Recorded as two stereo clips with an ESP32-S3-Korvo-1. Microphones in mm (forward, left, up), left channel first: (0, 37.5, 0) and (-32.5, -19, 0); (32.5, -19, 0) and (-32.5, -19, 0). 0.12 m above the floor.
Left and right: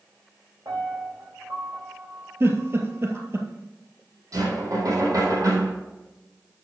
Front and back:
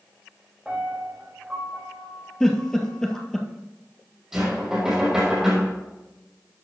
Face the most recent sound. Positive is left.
turn(degrees=-95)